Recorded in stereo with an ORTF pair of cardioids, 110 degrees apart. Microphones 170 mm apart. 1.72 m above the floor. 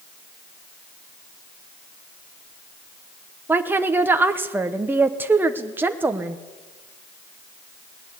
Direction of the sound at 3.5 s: 10° right.